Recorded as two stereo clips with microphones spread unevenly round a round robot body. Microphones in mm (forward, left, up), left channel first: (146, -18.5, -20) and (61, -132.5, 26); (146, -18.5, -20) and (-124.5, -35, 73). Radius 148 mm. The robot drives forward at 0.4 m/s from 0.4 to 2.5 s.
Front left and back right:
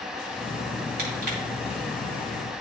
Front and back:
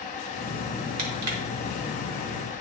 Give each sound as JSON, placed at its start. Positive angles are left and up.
{"t": 1.0, "sound": "crushing", "azimuth_deg": -150, "distance_m": 1.8}